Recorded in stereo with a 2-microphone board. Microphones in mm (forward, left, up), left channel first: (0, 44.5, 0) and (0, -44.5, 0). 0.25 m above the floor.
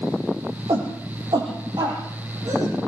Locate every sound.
0.7 s a shout: 60° right (ahead or behind), 9.5 m; by 2.8 s 50° right (ahead or behind), 9.5 m